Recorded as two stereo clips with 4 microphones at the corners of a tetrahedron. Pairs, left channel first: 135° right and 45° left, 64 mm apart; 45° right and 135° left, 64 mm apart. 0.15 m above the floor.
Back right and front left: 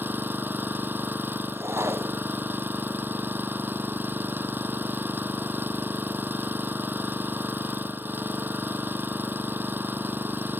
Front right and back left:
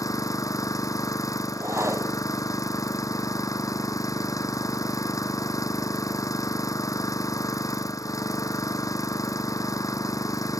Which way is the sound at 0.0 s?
15° right.